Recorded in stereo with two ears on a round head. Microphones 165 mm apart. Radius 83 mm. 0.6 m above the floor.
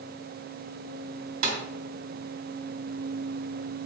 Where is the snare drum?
50° right (ahead or behind), 2 m.